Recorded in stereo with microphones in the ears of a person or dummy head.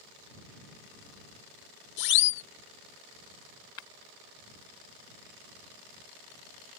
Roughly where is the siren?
Left.